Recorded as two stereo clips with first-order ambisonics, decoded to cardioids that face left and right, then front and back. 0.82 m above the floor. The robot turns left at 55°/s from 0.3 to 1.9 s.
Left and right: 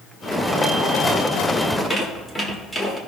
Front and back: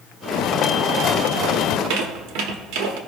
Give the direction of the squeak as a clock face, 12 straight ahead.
6 o'clock.